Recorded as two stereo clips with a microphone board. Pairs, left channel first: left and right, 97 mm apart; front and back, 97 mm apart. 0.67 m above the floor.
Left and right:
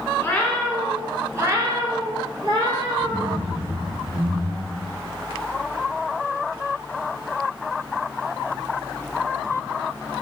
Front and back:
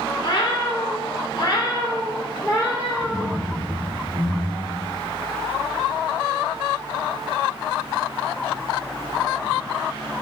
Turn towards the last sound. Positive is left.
turn(degrees=-100)